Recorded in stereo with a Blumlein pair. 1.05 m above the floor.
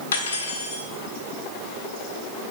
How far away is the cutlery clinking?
About 1.4 m.